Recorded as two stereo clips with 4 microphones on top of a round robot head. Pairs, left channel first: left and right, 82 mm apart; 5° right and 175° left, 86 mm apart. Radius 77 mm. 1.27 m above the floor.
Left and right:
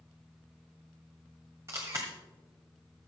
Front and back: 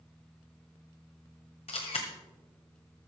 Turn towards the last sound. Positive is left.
turn(degrees=-20)